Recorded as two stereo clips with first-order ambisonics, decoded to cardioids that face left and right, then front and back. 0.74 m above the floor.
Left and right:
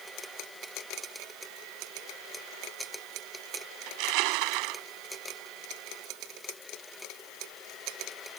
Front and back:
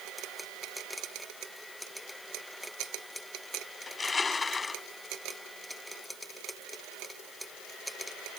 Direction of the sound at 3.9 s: 75° right.